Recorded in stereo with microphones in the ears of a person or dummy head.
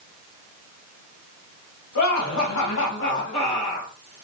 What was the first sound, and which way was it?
Laughter, 60° left (ahead or behind).